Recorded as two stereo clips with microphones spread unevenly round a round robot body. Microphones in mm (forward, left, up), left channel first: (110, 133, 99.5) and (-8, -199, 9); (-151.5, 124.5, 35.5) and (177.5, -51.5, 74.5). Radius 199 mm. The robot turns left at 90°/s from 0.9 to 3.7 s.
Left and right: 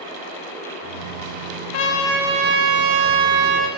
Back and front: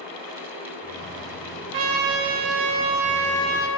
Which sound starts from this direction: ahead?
A trumpet, at 1.7 s.